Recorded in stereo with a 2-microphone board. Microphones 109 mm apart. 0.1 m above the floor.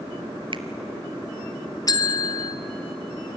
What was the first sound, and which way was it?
A finger snap, 50° right (ahead or behind).